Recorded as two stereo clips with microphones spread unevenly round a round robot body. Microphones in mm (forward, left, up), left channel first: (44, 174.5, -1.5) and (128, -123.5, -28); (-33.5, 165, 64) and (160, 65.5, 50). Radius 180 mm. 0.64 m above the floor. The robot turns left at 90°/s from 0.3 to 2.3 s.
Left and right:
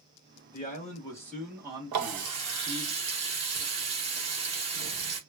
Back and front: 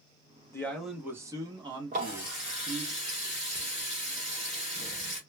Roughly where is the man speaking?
Left.